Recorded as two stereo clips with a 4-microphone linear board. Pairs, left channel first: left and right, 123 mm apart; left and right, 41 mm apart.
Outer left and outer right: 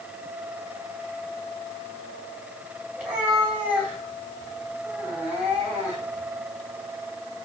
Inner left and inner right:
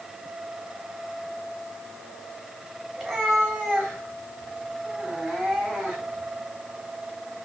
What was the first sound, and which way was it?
A cat meowing, 10° right (ahead or behind).